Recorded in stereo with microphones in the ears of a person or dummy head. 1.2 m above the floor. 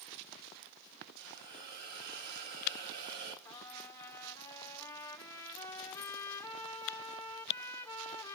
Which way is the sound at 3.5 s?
15° left (ahead or behind).